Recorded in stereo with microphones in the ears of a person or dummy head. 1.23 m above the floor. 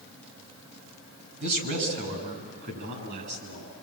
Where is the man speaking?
60° right (ahead or behind), 7 m.